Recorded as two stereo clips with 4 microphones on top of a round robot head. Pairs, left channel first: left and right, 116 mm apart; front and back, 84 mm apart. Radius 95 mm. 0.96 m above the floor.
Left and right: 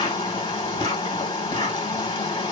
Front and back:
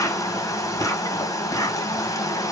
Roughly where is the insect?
Ahead left.